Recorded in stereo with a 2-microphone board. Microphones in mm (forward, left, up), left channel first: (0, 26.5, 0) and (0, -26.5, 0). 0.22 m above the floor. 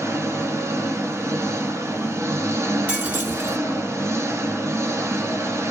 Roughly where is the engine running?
Right.